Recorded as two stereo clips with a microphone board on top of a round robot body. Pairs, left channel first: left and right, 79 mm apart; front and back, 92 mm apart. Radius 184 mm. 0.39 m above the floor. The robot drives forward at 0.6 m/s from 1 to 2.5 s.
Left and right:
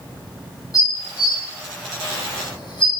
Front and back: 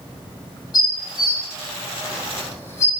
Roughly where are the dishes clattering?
Ahead left.